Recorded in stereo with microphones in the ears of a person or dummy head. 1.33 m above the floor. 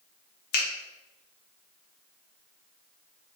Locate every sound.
0.5 s a finger snap: 60° left (ahead or behind), 0.7 m